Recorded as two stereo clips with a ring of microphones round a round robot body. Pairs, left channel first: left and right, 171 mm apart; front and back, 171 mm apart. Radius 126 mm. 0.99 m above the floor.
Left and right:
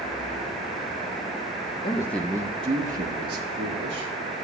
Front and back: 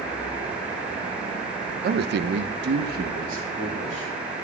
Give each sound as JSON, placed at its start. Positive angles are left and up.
{"t": 1.8, "sound": "a man speaking", "azimuth_deg": 155, "distance_m": 0.7}